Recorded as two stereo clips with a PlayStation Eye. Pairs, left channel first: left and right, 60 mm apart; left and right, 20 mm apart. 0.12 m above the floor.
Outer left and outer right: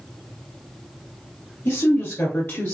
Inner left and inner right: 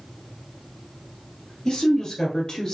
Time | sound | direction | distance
1.6 | a woman speaking | 55° left (ahead or behind) | 2.5 m